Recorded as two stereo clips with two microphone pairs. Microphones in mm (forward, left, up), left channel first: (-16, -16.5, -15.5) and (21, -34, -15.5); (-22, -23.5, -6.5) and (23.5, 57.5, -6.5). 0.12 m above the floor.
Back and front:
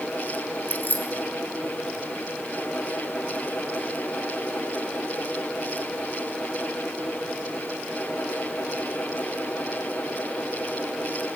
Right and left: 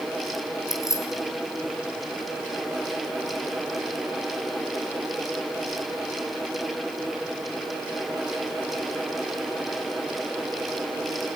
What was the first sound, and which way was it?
Keys jangling, 170° right.